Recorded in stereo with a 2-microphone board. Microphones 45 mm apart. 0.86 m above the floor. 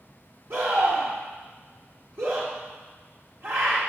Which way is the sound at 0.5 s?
55° right (ahead or behind).